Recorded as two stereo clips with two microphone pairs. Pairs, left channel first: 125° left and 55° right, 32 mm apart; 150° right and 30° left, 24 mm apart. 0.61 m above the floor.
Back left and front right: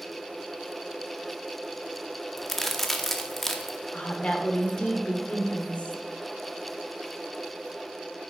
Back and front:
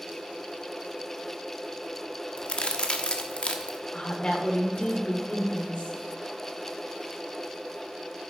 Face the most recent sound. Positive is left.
turn(degrees=170)